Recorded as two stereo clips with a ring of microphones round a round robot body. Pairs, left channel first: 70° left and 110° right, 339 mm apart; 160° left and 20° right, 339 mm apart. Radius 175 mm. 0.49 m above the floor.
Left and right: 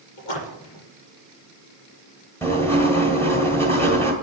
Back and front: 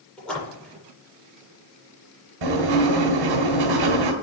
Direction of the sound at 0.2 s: 70° left.